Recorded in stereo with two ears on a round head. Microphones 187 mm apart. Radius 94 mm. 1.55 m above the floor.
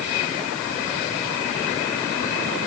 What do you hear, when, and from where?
Only background noise.